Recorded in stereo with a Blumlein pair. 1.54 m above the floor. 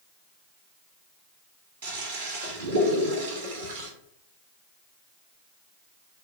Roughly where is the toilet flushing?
Ahead right.